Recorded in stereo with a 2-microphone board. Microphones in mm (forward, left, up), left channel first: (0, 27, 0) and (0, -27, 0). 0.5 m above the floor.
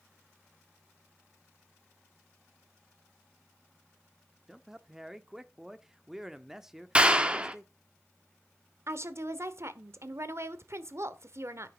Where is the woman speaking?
55° right (ahead or behind), 1.2 m.